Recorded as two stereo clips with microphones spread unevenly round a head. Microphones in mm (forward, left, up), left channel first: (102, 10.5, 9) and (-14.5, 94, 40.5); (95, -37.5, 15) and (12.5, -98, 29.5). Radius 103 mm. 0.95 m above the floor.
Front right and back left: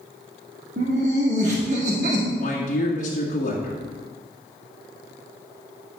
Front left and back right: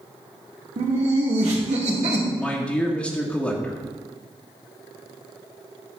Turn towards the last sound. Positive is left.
turn(degrees=-35)